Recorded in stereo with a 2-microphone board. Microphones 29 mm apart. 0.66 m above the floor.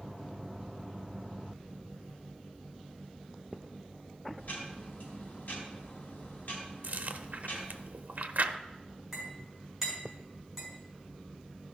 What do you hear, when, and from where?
4.4 s ticking: 60° left (ahead or behind), 3 m
6.8 s chewing: 65° right (ahead or behind), 0.6 m
9.1 s a clink: 10° right (ahead or behind), 5 m